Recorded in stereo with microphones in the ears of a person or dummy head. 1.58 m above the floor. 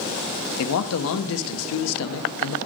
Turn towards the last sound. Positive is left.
turn(degrees=75)  # may be behind; listen again after turning